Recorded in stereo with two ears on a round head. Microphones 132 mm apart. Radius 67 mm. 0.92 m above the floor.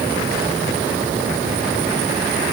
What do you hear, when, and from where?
Only background noise.